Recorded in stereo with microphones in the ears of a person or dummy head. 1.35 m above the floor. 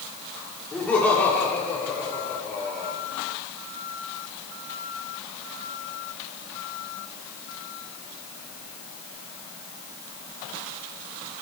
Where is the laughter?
15° left (ahead or behind), 4.5 m; by 3.0 s 20° left (ahead or behind), 5.5 m.